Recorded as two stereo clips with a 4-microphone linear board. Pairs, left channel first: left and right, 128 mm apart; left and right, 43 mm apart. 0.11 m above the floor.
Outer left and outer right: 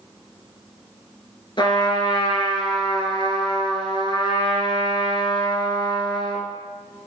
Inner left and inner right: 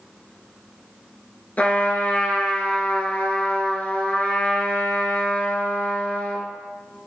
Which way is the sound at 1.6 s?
40° left (ahead or behind).